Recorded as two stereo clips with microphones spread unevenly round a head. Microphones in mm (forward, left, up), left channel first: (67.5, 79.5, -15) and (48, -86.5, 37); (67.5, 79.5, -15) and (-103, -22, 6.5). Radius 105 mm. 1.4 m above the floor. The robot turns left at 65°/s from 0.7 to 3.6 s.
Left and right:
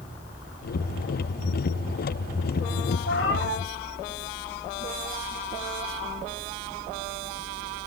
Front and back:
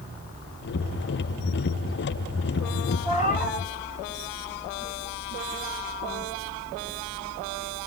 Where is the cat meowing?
95° left, 8 m; by 3.6 s 60° left, 8 m.